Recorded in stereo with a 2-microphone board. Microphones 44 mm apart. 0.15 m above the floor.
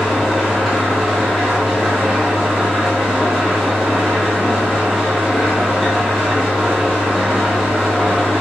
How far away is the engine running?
About 1.6 m.